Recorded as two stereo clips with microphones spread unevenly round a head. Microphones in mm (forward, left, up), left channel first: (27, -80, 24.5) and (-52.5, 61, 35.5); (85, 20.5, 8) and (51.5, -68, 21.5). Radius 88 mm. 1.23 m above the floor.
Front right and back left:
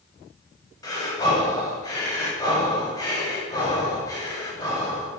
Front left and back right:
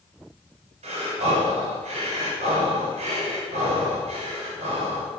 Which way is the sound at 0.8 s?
130° right.